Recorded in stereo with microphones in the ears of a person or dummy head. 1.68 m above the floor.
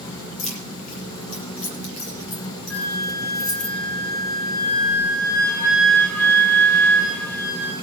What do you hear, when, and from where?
0.4 s keys jangling: 40° left (ahead or behind), 1.5 m
2.7 s a flute: 10° left (ahead or behind), 2.5 m